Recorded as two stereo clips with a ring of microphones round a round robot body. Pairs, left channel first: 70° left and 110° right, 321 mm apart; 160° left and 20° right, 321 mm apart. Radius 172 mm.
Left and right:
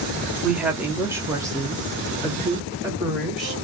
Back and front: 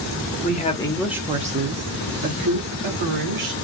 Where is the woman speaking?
165° left, 0.8 m; by 3.5 s 35° right, 1.7 m.